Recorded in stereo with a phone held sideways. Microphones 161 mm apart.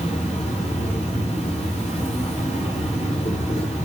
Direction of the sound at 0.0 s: 45° left (ahead or behind).